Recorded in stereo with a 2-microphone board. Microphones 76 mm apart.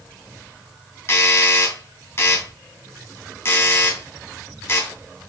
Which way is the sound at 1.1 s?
35° left (ahead or behind).